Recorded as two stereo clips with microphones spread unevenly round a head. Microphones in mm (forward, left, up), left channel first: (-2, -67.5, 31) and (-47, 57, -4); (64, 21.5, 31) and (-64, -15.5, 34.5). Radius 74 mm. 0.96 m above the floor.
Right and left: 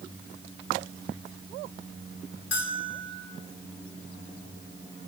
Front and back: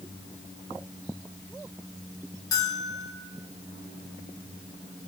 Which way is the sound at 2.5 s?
50° right.